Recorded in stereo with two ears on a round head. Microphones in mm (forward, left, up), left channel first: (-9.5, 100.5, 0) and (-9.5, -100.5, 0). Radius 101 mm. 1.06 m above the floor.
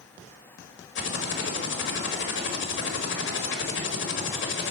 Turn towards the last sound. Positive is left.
turn(degrees=55)  # may be behind; listen again after turning